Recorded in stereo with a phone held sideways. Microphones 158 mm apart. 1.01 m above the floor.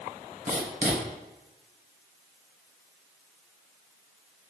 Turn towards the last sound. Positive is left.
turn(degrees=-60)  # may be behind; listen again after turning